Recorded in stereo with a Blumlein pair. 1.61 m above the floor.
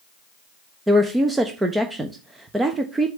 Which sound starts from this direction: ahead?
A woman speaking, at 0.9 s.